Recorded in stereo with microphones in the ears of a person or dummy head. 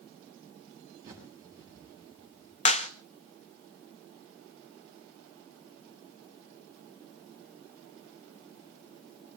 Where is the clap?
35° left (ahead or behind), 0.8 m.